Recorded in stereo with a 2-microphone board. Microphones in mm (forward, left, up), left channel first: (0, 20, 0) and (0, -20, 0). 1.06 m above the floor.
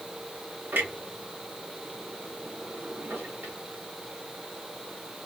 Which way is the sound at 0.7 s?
65° right (ahead or behind).